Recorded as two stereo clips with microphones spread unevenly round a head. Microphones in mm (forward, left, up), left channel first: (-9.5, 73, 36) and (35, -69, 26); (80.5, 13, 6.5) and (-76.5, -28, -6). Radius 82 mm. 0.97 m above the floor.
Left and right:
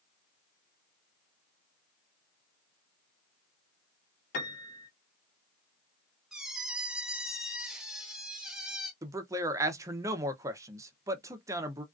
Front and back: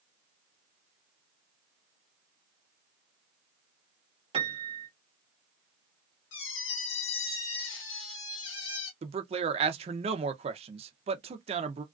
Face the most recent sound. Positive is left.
turn(degrees=-135)